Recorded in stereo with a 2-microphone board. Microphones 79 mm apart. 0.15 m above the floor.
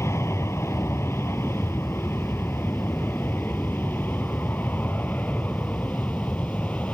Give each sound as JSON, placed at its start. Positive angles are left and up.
{"t": 0.0, "sound": "an aircraft", "side_deg": 35}